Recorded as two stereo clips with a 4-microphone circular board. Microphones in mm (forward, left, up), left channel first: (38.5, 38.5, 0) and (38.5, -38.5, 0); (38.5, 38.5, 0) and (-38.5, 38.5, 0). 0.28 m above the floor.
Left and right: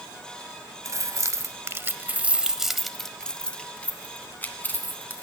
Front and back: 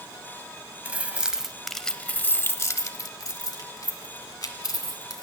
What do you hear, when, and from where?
0.8 s keys jangling: 115° right, 0.9 m; by 5.2 s 25° left, 1.8 m